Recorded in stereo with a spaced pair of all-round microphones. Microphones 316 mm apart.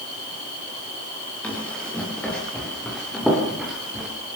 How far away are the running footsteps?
About 9.5 m.